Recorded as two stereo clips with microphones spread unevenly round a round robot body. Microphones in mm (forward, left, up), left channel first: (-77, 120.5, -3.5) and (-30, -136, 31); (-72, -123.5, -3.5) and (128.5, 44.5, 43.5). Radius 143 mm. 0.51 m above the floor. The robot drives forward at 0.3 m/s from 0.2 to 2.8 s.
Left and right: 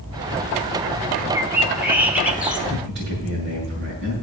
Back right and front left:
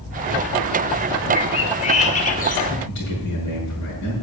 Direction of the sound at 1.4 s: 165° right.